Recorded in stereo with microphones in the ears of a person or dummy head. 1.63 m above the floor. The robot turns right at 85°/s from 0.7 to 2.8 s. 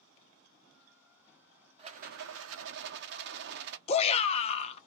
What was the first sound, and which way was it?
A rattle, 150° right.